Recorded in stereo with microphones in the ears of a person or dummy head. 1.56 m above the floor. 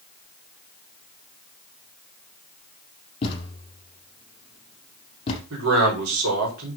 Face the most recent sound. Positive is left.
turn(degrees=-85)